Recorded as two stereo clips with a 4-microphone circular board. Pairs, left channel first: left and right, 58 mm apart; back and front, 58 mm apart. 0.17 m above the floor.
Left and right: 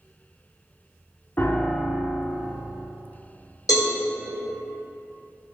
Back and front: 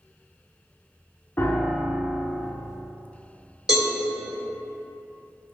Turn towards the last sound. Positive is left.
turn(degrees=85)